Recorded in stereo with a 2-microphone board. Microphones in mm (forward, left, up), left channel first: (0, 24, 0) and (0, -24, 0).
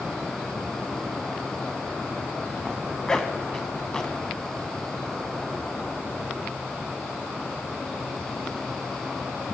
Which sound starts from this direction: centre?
A zipper, at 2.6 s.